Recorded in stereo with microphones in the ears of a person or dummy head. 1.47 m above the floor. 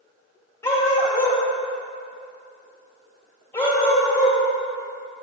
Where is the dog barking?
15° left (ahead or behind), 2.5 m.